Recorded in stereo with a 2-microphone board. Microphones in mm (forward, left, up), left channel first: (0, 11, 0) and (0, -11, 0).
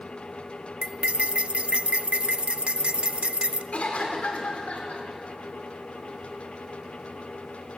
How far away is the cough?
About 4.5 m.